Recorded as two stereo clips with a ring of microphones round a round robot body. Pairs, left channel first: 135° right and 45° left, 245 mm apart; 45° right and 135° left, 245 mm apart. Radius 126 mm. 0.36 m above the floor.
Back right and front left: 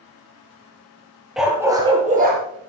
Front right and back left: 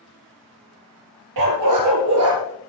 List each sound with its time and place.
1.4 s a dog barking: 135° left, 2.5 m; by 2.4 s 95° left, 2 m